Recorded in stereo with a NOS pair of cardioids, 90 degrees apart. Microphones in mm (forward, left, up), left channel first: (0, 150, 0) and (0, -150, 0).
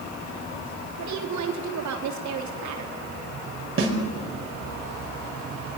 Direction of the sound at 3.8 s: 40° right.